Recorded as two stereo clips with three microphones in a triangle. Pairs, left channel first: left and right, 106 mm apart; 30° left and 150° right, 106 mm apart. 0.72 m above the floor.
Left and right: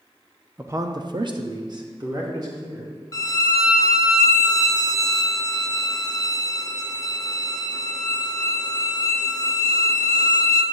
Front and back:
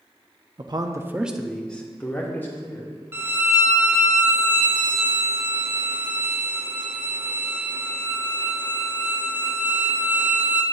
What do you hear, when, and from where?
0.6 s a man speaking: 155° right, 0.6 m; by 3.0 s 40° right, 2 m
3.1 s a violin: 145° left, 0.6 m